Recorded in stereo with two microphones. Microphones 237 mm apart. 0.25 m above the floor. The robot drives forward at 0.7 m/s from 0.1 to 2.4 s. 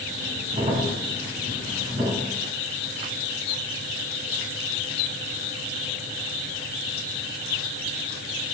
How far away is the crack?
About 1.2 m.